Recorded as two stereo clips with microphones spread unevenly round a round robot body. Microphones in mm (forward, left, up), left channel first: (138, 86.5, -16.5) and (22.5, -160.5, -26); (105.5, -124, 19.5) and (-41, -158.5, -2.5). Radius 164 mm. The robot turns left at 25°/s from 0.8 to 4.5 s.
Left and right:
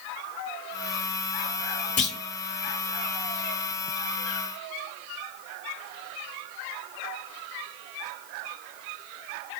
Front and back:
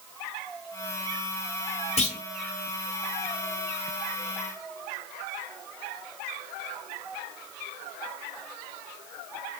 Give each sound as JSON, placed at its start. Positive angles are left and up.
{"t": 2.0, "sound": "a clunk", "azimuth_deg": 20, "distance_m": 1.0}